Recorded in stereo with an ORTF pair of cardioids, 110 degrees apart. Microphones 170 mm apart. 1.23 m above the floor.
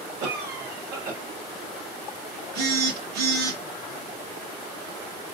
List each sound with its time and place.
0.2 s a cough: 65° right, 2 m
2.5 s a phone buzzing: 70° right, 2 m